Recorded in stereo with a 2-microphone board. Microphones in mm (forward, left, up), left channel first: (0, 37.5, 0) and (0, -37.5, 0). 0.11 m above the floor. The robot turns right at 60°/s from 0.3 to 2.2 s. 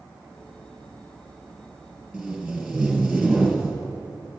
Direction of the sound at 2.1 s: 10° right (ahead or behind).